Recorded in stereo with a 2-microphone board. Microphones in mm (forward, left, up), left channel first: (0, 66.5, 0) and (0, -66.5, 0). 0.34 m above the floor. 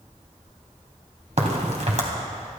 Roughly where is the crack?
Right.